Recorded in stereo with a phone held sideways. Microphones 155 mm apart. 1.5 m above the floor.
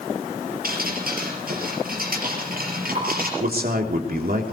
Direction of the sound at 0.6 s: 70° right (ahead or behind).